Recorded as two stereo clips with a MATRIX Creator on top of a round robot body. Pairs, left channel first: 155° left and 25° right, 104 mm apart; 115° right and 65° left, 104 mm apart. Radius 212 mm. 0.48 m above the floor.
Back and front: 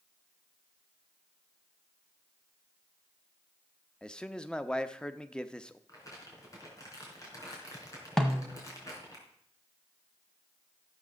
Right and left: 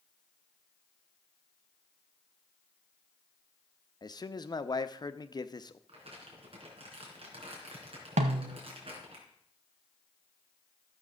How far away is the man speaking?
About 1.0 m.